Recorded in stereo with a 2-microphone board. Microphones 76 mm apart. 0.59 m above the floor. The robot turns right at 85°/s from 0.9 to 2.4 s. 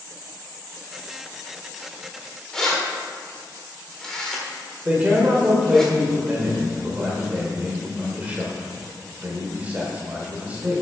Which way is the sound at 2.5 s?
5° left (ahead or behind).